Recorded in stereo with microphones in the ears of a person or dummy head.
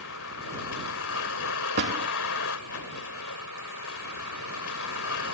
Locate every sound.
0.0 s a vehicle: 85° left
1.8 s a door slam: 55° right (ahead or behind)